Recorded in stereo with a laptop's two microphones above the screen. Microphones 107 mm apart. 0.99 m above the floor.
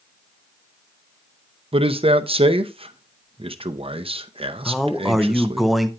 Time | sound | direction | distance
1.7 | a man speaking | 60° right (ahead or behind) | 0.7 m
4.7 | a man speaking | centre (ahead or behind) | 0.8 m